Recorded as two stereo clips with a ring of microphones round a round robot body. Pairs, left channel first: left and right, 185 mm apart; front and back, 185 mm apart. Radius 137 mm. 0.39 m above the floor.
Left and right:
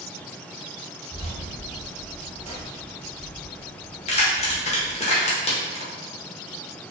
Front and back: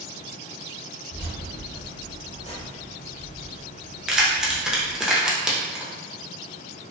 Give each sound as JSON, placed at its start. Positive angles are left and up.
{"t": 1.1, "sound": "keys jangling", "azimuth_deg": 20, "distance_m": 1.5}
{"t": 4.1, "sound": "keys jangling", "azimuth_deg": 95, "distance_m": 0.7}